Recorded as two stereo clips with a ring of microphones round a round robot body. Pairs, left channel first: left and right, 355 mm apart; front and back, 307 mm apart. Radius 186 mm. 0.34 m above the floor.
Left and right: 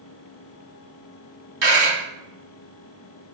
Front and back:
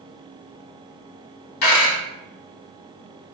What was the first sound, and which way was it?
A dropped coin, 30° right.